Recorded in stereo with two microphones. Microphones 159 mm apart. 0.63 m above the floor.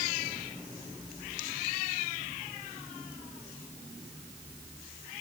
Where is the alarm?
No alarm in this recording.